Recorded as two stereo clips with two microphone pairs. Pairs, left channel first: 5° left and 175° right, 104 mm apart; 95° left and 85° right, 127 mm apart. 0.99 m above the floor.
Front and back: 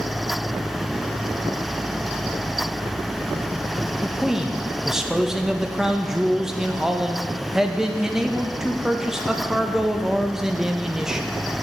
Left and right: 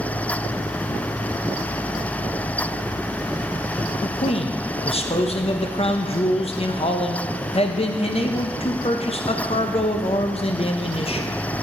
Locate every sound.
4.0 s a man speaking: 100° left, 0.7 m